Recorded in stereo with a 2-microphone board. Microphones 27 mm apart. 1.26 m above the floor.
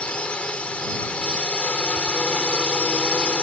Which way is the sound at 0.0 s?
50° left (ahead or behind).